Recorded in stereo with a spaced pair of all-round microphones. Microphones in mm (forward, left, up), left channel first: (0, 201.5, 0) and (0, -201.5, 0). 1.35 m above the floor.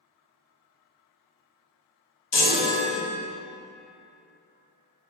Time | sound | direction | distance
2.3 | a chime | 75° left (ahead or behind) | 0.8 m